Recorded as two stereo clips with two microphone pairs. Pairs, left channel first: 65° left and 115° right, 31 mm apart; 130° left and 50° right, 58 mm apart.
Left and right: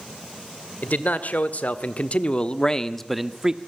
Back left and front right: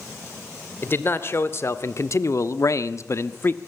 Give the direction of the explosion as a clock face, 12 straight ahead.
I don't hear an explosion.